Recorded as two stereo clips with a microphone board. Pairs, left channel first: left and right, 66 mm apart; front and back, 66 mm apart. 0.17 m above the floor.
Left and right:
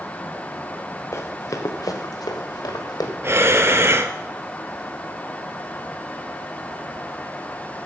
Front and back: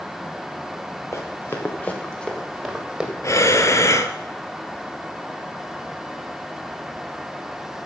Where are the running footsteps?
45° left, 2.5 m; by 3.1 s 100° left, 3 m.